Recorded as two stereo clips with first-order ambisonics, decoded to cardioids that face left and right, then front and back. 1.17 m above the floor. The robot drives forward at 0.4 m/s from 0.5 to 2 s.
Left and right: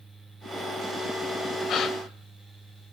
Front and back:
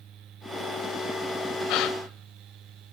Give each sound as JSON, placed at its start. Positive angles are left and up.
{"t": 1.7, "sound": "a gasp", "azimuth_deg": 30, "distance_m": 1.8}